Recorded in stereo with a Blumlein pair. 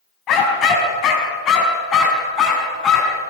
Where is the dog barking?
30° left, 4.5 m; by 3.2 s 25° left, 6 m.